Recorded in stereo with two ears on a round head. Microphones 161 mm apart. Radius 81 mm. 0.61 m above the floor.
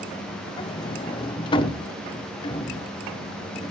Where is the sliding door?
25° left (ahead or behind), 0.9 m.